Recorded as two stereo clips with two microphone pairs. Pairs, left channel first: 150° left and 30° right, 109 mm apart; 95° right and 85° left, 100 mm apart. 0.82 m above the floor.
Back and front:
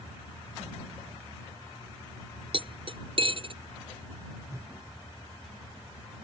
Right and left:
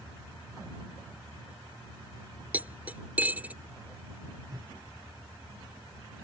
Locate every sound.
2.5 s cutlery clinking: 10° left
4.5 s a whoosh: 30° left